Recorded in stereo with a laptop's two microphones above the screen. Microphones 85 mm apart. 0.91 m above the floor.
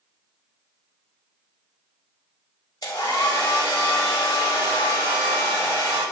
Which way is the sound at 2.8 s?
50° left (ahead or behind).